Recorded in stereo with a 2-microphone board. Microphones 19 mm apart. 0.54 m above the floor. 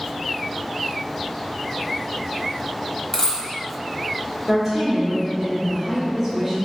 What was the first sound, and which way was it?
A dropped coin, 20° left (ahead or behind).